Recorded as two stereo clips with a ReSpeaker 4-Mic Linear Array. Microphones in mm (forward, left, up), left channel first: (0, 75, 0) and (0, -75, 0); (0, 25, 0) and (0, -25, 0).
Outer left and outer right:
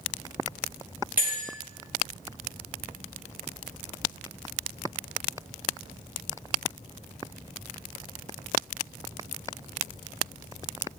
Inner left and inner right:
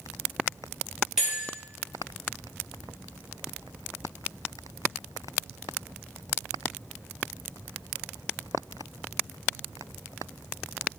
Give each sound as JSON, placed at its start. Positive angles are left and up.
{"t": 1.2, "sound": "a bell", "side_deg": -10, "distance_m": 3.0}